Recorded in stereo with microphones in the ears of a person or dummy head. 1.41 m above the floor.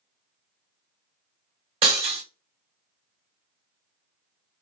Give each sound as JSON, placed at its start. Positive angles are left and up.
{"t": 1.8, "sound": "breaking glass", "side_deg": -25, "distance_m": 1.5}